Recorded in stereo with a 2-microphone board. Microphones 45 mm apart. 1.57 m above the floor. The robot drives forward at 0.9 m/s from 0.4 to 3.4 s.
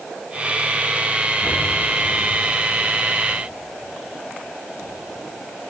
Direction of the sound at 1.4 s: 50° left (ahead or behind).